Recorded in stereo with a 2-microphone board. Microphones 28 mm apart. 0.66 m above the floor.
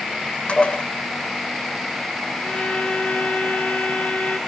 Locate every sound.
0.5 s dishes clattering: 40° left (ahead or behind), 1.6 m
2.4 s a violin: 60° left (ahead or behind), 1.7 m